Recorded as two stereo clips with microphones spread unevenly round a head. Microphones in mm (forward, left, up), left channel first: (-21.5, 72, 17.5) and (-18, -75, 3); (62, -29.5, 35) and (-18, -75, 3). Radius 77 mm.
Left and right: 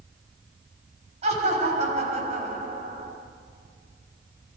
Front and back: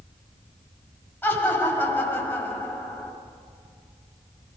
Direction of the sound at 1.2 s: 35° right.